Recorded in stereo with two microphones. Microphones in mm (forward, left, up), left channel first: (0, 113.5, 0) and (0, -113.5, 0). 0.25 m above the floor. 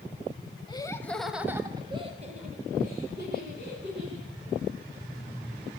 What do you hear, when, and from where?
0.7 s laughter: 20° left (ahead or behind), 1.0 m; by 4.3 s 55° right (ahead or behind), 2 m